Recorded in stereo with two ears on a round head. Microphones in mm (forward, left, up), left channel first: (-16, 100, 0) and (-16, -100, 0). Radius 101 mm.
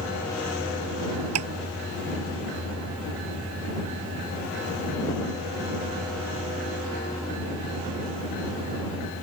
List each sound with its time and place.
1.4 s tapping: 80° right